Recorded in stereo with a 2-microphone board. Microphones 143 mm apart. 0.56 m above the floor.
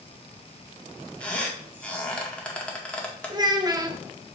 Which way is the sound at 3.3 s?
30° right (ahead or behind).